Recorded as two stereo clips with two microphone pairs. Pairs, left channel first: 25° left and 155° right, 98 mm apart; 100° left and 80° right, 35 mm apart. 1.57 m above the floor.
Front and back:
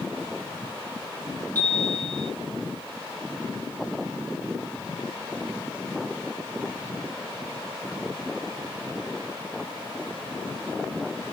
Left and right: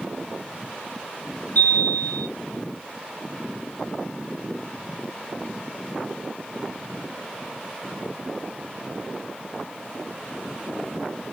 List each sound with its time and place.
1.6 s a chime: 90° left, 3 m